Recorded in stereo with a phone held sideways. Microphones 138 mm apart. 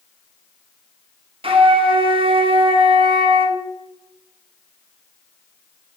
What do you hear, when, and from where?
1.4 s a flute: 40° right (ahead or behind), 0.7 m